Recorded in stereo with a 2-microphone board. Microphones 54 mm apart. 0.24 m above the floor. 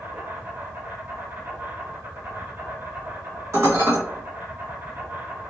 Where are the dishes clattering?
60° right (ahead or behind), 1.7 m.